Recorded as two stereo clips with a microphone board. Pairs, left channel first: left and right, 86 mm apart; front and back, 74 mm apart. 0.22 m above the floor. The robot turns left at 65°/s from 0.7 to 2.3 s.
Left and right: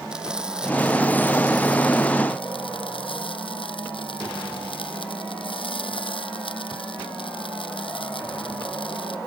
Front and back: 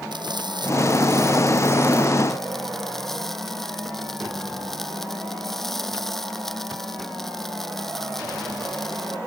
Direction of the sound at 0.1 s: 170° right.